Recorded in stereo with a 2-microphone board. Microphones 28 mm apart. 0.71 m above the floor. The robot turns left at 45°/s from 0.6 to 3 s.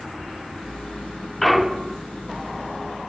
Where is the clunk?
5° left (ahead or behind), 0.8 m; by 2.0 s 25° right (ahead or behind), 0.8 m.